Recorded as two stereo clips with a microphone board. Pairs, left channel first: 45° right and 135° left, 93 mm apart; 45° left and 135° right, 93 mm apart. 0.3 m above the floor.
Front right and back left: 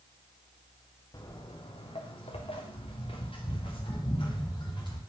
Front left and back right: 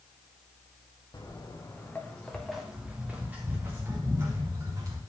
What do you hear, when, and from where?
1.1 s footsteps: 5° right, 1.6 m; by 5.0 s 85° right, 3 m